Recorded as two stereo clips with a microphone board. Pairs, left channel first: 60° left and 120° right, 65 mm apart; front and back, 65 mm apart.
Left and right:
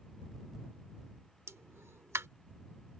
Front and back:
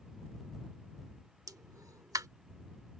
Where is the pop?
165° right.